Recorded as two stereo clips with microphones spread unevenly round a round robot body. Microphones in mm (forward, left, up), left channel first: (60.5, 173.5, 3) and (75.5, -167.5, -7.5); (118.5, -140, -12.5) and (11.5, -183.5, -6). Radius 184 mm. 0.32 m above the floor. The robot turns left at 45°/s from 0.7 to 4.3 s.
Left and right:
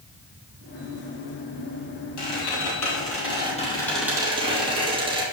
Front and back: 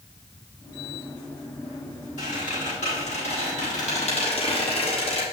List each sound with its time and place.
2.2 s a squeak: 85° left, 3.5 m; by 5.2 s 10° right, 3.5 m